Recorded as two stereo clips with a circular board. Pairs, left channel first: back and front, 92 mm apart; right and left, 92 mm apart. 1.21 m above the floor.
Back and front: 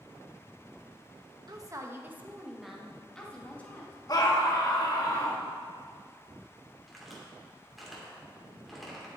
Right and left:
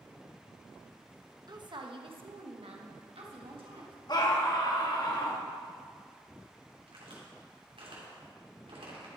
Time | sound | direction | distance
1.5 | a woman speaking | 45° left | 1.0 m
4.1 | a scream | 135° right | 1.7 m
6.9 | a crack | 90° left | 2.5 m